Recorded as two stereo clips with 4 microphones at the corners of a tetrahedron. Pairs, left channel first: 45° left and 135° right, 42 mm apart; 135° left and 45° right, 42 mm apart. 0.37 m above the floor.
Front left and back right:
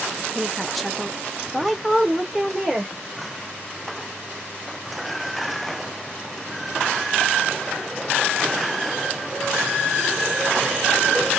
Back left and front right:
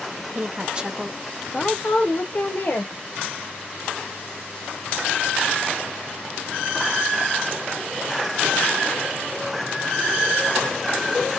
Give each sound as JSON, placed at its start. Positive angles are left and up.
{"t": 0.3, "sound": "a woman speaking", "azimuth_deg": -40, "distance_m": 0.9}